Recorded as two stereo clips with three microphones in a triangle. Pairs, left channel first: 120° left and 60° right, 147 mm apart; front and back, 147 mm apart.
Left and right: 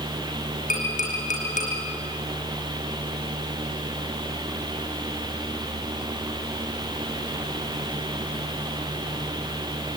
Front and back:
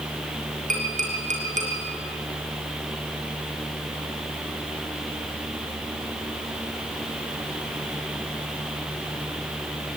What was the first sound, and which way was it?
Tapping, 150° left.